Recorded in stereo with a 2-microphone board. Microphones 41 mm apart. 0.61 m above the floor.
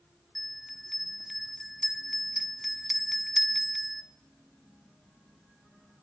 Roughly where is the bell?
Centre.